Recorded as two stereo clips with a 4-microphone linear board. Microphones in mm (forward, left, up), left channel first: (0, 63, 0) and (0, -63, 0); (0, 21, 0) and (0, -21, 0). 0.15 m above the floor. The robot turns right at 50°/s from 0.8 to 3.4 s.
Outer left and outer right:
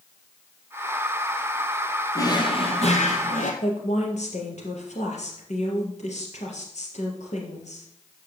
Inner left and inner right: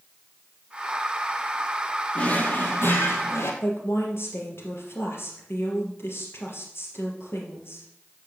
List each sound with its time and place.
2.1 s a drawer: 25° left, 1.9 m; by 3.5 s 90° left, 1.9 m
3.6 s a woman speaking: 65° left (ahead or behind), 3.5 m